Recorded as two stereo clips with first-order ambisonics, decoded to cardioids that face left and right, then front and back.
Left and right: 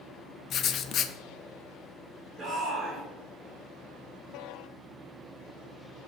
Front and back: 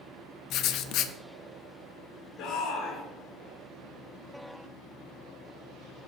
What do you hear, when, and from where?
0.5 s writing: 35° left, 0.5 m
2.4 s a shout: 25° right, 2.5 m